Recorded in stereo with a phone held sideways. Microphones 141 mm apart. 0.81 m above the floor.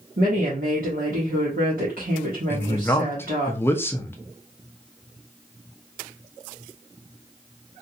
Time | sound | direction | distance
0.2 | a woman speaking | 75° right (ahead or behind) | 1.2 m
2.5 | a man speaking | 15° left (ahead or behind) | 0.6 m